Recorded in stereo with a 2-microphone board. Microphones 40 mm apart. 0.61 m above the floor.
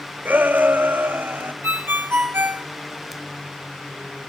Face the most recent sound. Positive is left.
turn(degrees=-75)  # may be behind; listen again after turning